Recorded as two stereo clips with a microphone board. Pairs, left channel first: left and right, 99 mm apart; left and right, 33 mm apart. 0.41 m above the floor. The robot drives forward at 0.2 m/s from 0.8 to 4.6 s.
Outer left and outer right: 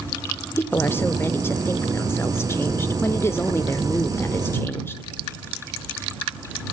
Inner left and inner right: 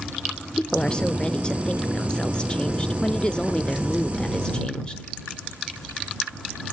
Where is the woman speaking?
20° left (ahead or behind), 0.9 m; by 5.0 s 25° left (ahead or behind), 0.9 m.